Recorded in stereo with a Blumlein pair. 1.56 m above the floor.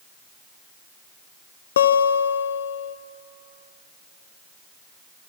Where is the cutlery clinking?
No cutlery clinking in this recording.